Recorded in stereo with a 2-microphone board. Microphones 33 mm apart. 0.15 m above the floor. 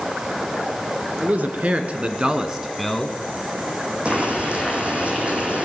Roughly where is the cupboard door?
No cupboard door in this recording.